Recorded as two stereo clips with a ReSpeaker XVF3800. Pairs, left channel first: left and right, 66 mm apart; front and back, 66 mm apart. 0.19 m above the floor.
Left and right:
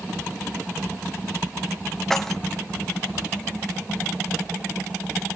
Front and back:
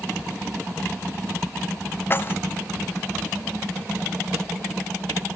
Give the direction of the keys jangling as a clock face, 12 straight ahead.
12 o'clock.